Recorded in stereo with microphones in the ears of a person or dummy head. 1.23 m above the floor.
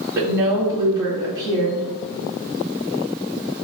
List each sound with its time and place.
0.1 s a woman speaking: 20° right (ahead or behind), 1.6 m